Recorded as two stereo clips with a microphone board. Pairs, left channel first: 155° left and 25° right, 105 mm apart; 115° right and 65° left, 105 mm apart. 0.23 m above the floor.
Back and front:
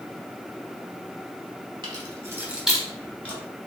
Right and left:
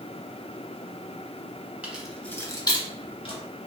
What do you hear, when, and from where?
1.8 s keys jangling: 5° right, 0.8 m; by 3.4 s 135° right, 1.3 m